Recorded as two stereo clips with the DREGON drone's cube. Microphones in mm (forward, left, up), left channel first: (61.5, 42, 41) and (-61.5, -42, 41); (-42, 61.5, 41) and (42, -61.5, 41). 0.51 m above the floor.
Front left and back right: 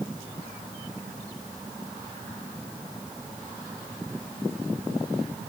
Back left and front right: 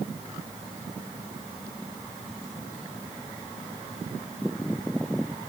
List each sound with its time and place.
Only background noise.